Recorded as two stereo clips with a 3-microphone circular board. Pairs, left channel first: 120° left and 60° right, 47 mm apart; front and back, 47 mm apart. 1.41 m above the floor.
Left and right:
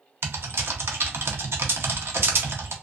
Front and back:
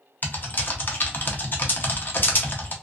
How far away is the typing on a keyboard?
About 0.6 m.